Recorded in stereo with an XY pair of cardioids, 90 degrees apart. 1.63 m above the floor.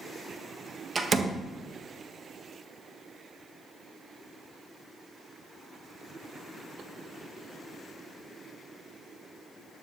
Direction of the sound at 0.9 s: 35° right.